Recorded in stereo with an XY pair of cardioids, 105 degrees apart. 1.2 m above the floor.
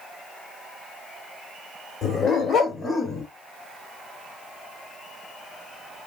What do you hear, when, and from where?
2.0 s a dog barking: 70° left, 2.0 m; by 3.3 s 40° left, 2 m